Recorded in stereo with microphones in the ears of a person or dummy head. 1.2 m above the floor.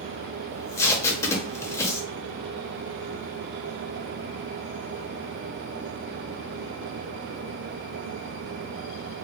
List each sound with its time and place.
0.5 s tape being pulled: 20° left (ahead or behind), 0.6 m